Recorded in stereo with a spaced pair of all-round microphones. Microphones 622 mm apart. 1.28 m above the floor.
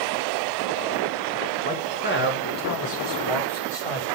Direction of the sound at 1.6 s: 10° left (ahead or behind).